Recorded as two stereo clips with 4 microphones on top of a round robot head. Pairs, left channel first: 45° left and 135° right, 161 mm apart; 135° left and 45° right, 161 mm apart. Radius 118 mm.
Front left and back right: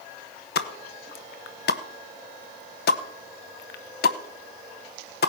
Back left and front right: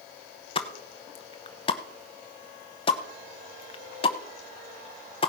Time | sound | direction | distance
0.6 | a pop | 75° left | 0.7 m